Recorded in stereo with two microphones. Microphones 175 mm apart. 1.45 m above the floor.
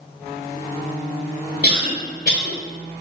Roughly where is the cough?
Left.